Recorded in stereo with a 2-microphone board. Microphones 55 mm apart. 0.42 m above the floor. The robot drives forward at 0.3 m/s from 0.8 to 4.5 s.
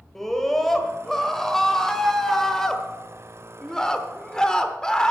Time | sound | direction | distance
0.1 | a scream | 5° left (ahead or behind) | 1.6 m